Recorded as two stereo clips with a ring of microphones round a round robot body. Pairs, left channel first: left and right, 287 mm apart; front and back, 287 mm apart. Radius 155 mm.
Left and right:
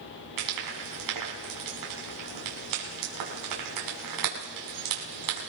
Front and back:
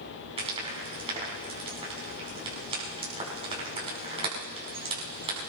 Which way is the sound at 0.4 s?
110° right.